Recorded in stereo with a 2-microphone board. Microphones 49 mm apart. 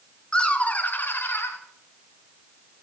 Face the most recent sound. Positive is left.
turn(degrees=55)  # may be behind; listen again after turning